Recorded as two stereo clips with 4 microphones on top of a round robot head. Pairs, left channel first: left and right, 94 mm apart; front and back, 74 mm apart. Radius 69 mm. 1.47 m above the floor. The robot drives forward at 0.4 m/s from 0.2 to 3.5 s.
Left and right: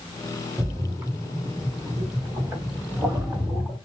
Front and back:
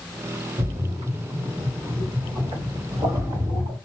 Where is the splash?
145° right, 1.2 m; by 3.8 s 160° right, 2.5 m.